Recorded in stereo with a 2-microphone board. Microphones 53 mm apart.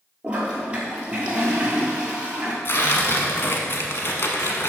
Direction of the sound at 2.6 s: 50° left (ahead or behind).